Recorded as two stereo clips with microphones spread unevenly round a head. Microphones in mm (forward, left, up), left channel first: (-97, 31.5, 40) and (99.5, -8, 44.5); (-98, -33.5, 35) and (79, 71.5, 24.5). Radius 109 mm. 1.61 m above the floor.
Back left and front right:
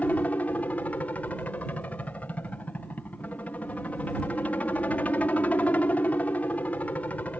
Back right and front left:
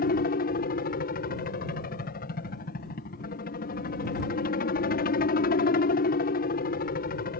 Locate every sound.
0.0 s a helicopter: 110° right